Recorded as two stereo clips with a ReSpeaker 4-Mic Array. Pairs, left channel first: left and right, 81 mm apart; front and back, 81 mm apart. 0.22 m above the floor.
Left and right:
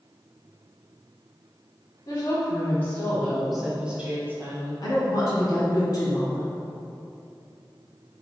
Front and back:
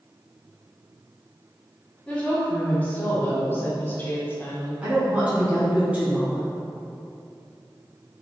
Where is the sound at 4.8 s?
110° left, 1.7 m.